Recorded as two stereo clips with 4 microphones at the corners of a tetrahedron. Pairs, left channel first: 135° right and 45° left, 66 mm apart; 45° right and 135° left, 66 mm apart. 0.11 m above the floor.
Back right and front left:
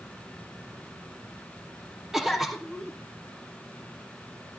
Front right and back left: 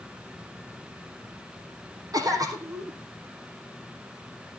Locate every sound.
2.1 s a cough: 130° left, 4 m